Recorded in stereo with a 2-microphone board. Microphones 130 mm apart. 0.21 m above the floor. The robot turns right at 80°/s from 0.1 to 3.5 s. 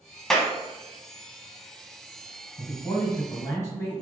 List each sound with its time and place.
0.3 s a clap: 5° left (ahead or behind), 0.9 m; by 0.5 s 10° left (ahead or behind), 0.9 m
2.6 s a man speaking: 20° left (ahead or behind), 1.8 m